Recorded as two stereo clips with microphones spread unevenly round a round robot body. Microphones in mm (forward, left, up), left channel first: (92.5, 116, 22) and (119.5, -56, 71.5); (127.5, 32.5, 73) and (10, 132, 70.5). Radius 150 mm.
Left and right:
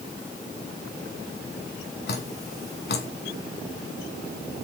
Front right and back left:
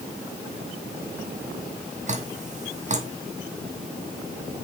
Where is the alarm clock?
No alarm clock in this recording.